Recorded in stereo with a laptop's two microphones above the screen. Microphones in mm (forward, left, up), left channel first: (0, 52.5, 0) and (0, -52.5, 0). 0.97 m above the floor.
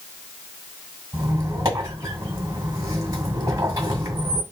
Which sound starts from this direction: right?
A squeak, at 1.1 s.